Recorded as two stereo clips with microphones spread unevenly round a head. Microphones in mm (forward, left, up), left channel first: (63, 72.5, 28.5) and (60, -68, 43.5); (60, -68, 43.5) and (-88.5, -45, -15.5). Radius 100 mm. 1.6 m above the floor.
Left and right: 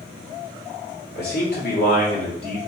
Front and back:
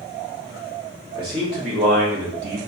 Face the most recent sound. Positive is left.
turn(degrees=155)